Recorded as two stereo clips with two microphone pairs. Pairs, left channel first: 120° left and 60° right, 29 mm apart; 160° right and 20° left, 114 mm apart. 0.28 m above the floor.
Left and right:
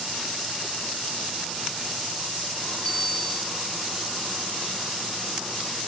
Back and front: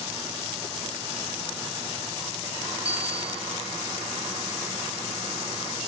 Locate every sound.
2.9 s a bicycle bell: 55° left, 7 m